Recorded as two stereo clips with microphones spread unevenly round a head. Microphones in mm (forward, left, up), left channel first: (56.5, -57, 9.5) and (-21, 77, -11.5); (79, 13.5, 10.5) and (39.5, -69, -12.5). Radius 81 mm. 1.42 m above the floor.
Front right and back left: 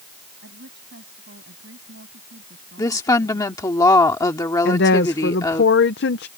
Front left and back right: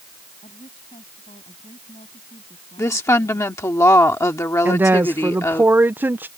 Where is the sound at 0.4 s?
100° left.